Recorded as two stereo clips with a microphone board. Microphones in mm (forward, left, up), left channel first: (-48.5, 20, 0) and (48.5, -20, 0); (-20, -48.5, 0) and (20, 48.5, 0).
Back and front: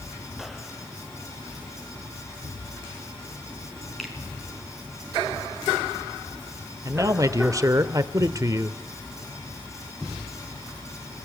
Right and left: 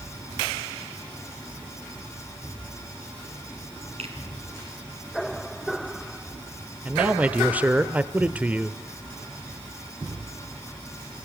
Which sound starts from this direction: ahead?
A man speaking, at 6.8 s.